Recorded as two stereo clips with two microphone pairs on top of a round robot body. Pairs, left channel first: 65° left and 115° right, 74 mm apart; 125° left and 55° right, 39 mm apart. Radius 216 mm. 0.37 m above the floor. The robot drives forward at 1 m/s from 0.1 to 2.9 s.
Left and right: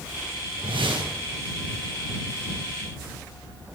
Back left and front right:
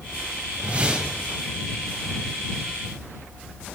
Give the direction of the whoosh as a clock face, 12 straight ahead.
4 o'clock.